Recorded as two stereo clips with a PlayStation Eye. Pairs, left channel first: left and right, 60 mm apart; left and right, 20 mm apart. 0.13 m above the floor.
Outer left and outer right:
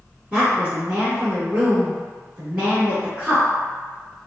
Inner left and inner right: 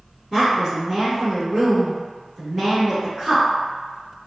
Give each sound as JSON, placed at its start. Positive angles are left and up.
{"t": 0.3, "sound": "a woman speaking", "side_deg": -25, "distance_m": 1.3}